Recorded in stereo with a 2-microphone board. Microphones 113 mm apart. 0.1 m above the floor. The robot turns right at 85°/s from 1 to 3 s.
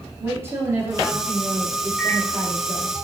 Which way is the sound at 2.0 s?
10° left (ahead or behind).